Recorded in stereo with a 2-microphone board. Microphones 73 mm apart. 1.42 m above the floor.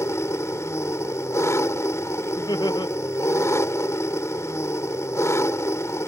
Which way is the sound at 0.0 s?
45° left (ahead or behind).